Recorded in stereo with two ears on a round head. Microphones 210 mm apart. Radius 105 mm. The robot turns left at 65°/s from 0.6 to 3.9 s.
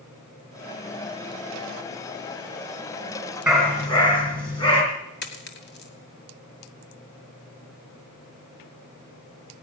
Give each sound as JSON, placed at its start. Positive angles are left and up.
{"t": 3.5, "sound": "a dog barking", "side_deg": -5, "distance_m": 3.0}
{"t": 5.2, "sound": "a dropped coin", "side_deg": 45, "distance_m": 2.0}